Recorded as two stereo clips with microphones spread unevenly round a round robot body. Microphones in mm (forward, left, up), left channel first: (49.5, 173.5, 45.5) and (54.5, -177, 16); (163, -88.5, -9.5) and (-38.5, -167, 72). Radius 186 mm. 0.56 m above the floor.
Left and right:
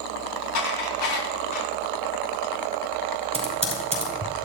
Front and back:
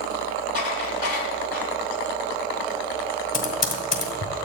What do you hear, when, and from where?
0.6 s dishes clattering: 85° left, 3.5 m
3.3 s typing on a keyboard: 20° right, 4.5 m